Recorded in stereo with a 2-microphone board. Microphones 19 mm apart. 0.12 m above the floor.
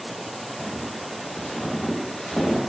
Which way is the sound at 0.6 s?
35° left (ahead or behind).